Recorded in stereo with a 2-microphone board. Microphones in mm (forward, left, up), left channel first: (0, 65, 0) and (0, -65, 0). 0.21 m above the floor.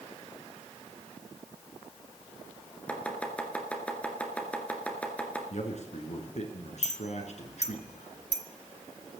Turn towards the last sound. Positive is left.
turn(degrees=70)  # may be behind; listen again after turning